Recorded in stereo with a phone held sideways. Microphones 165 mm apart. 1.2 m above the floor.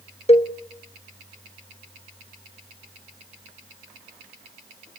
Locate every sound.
0.3 s a cowbell: 40° left (ahead or behind), 1.5 m